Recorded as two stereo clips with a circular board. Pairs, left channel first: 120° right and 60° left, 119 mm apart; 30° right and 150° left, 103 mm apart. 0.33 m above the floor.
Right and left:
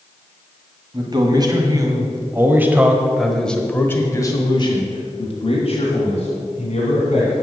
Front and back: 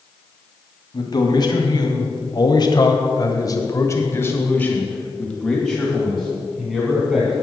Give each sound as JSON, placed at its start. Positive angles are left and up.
{"t": 0.9, "sound": "a man speaking", "azimuth_deg": 15, "distance_m": 2.0}